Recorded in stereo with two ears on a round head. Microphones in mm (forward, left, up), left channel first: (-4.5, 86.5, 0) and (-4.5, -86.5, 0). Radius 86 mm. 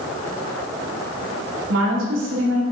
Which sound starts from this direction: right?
A woman speaking, at 1.7 s.